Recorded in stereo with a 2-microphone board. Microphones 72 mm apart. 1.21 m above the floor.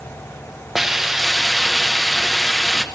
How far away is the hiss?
About 0.9 m.